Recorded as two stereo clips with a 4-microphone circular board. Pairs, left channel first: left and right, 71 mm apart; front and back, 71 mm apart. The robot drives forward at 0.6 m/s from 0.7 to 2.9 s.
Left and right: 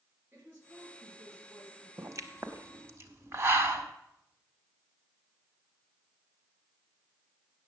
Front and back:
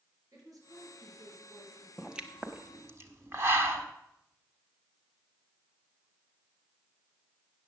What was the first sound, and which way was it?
A woman speaking, 150° right.